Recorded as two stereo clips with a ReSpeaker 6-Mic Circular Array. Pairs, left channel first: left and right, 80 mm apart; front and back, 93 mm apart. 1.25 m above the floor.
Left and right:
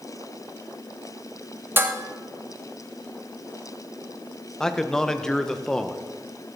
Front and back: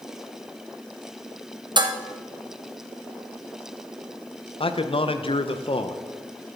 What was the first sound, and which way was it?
Dishes clattering, 150° right.